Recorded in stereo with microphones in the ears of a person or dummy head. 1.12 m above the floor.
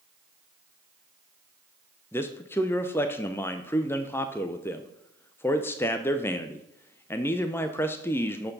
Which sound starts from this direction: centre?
A man speaking, at 2.1 s.